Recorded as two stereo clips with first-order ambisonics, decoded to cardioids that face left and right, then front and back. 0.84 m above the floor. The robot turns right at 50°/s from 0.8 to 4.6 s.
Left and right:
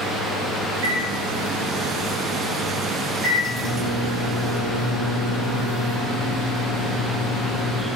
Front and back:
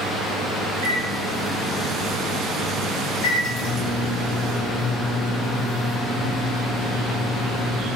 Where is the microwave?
140° right, 2.5 m; by 7.9 s 50° left, 2.5 m.